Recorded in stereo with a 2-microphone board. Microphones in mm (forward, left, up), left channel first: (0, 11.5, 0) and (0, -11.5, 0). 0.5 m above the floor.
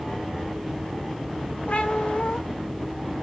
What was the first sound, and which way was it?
A cat meowing, 65° left (ahead or behind).